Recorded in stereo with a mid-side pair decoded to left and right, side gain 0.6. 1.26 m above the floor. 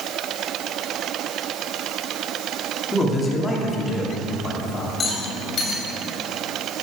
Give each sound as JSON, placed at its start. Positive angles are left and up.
{"t": 2.9, "sound": "a man speaking", "azimuth_deg": 20, "distance_m": 2.5}
{"t": 5.0, "sound": "a rattle", "azimuth_deg": 40, "distance_m": 3.0}